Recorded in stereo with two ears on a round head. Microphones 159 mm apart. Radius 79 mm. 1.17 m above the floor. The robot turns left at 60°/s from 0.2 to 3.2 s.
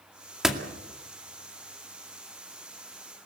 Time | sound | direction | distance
0.4 | a door slam | 5° right (ahead or behind) | 2 m